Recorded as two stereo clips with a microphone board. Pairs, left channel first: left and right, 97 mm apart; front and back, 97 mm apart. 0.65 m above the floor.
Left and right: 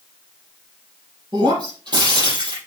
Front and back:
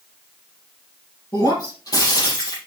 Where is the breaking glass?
50° right, 5.5 m.